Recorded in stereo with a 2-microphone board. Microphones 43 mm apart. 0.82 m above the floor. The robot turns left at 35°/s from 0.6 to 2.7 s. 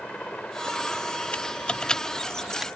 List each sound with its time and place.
0.0 s a helicopter: 145° left; by 2.8 s 75° left
1.3 s typing on a keyboard: 35° left (ahead or behind); by 2.7 s 10° right (ahead or behind)